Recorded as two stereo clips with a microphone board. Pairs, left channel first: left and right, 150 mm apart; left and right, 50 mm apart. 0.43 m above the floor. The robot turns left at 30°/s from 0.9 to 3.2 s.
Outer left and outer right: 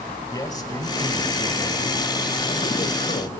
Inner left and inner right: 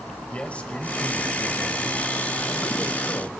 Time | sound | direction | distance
0.3 | a man speaking | 150° left | 1.9 m